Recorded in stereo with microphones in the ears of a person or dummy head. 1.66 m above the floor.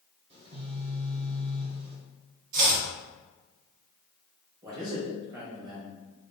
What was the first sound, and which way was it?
A phone buzzing, 30° right (ahead or behind).